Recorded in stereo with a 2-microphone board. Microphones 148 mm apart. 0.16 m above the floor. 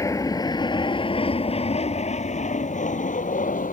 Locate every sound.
0.0 s an aircraft: 20° left (ahead or behind); by 3.7 s 65° left (ahead or behind)